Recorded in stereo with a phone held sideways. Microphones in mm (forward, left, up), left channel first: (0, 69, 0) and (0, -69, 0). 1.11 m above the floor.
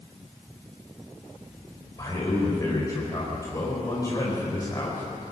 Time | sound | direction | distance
2.0 | a man speaking | 25° left (ahead or behind) | 4.5 m